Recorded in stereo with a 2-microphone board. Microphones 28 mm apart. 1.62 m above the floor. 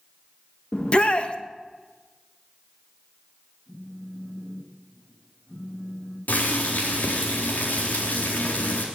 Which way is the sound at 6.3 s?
85° left.